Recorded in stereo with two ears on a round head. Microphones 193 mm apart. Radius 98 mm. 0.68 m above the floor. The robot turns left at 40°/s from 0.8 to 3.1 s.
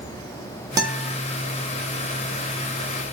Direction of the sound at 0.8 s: 20° right (ahead or behind).